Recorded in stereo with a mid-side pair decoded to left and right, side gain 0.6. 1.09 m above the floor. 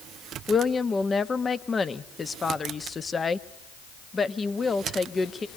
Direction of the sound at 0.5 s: 25° left.